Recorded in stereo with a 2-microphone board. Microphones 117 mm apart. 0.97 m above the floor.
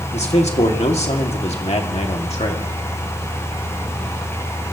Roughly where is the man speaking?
Left.